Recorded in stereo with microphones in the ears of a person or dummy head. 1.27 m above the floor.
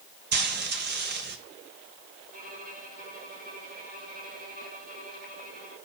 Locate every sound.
0.3 s frying: 55° right (ahead or behind), 1.0 m
2.3 s a violin: 45° right (ahead or behind), 5 m